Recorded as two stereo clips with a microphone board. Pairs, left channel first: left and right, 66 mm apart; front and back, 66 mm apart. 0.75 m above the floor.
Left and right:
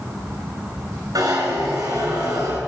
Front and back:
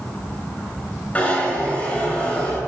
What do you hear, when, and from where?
1.1 s a zipper: 70° right, 5.5 m